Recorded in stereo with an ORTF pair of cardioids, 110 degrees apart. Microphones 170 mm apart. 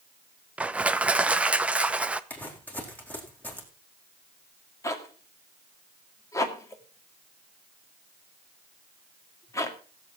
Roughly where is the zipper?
Ahead.